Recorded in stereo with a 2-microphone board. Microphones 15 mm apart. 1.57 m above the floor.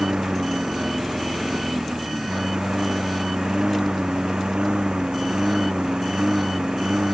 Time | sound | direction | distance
0.0 | a lawn mower | 70° right (ahead or behind) | ?